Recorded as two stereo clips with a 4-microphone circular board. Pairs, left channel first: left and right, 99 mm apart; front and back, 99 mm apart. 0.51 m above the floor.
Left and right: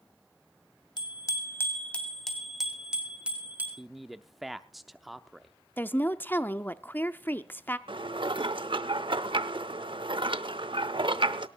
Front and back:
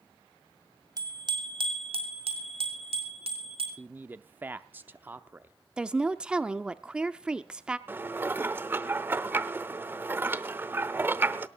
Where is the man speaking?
175° right, 0.6 m.